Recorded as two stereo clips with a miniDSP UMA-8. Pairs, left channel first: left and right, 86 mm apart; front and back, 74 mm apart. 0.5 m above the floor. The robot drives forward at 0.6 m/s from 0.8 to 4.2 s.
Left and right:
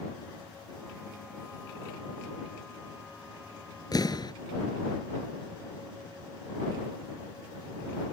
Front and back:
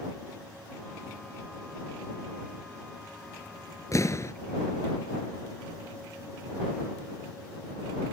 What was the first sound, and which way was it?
An explosion, 45° left.